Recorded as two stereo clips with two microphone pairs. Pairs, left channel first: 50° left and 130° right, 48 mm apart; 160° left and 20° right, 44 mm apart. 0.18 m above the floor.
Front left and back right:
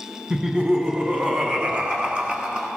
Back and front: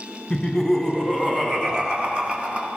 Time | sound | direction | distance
0.3 | laughter | 125° right | 1.4 m